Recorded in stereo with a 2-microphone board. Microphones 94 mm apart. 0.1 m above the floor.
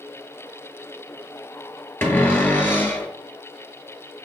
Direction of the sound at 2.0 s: 25° left (ahead or behind).